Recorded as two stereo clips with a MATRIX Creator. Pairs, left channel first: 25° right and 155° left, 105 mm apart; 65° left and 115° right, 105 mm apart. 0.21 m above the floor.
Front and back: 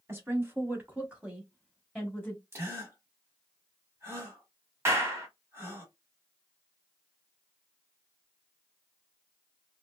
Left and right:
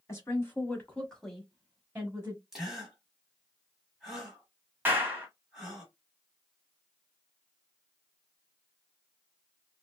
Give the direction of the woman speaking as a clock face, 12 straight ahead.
8 o'clock.